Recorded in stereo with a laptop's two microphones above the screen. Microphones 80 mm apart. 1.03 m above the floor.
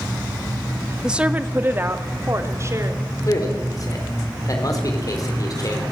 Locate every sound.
1.0 s a woman speaking: 10° right (ahead or behind), 1.4 m; by 3.0 s 40° right (ahead or behind), 4.5 m
3.3 s a man speaking: 50° left (ahead or behind), 4 m